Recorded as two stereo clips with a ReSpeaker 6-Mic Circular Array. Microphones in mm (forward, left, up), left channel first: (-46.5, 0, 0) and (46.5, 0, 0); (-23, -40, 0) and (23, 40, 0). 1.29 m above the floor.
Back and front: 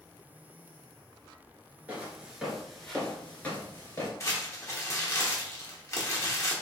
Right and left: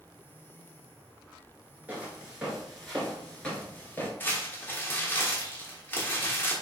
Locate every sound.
1.9 s footsteps: 30° left, 1.3 m; by 4.1 s 170° right, 1.4 m
4.2 s crumpling: 170° right, 1.0 m